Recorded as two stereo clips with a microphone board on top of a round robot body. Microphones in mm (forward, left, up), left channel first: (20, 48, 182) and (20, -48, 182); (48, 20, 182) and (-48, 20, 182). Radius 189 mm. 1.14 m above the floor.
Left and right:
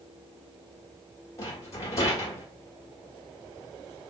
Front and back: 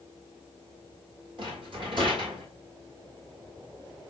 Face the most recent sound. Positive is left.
turn(degrees=150)